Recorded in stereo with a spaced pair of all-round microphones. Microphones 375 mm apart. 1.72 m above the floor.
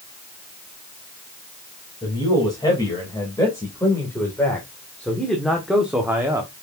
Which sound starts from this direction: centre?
A man speaking, at 2.0 s.